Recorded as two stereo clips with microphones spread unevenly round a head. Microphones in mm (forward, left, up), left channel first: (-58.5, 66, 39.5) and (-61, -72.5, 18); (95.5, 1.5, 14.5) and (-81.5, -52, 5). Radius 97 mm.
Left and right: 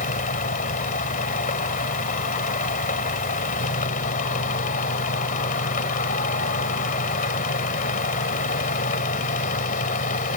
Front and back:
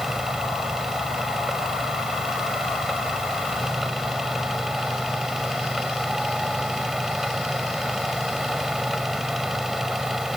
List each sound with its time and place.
0.0 s a fan: 105° left